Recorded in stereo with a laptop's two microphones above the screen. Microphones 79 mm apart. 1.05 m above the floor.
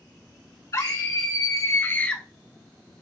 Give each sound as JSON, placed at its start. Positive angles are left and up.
{"t": 0.7, "sound": "a scream", "side_deg": 45, "distance_m": 1.8}